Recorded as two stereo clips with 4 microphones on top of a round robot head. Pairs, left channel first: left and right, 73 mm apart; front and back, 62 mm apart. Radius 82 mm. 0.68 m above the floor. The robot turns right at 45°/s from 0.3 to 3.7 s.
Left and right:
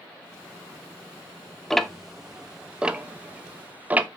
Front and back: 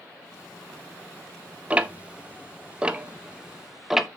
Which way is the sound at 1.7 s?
165° left.